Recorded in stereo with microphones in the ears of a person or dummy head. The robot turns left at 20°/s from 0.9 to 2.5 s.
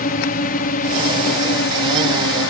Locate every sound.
0.0 s a drone: 130° left; by 2.5 s 95° left